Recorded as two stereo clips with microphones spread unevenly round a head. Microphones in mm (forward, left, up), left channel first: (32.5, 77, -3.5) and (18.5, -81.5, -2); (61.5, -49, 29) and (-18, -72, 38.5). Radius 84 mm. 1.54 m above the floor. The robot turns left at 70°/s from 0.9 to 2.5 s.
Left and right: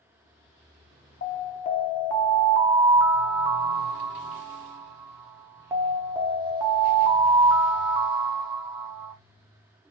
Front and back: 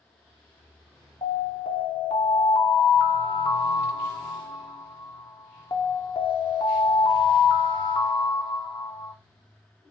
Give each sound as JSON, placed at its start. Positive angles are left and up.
{"t": 1.2, "sound": "an alarm", "azimuth_deg": 70, "distance_m": 0.7}